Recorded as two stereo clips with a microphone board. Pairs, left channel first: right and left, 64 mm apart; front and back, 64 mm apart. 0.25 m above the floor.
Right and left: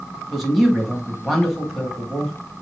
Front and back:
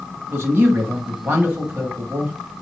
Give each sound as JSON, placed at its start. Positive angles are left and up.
{"t": 0.3, "sound": "a man speaking", "azimuth_deg": 180, "distance_m": 1.2}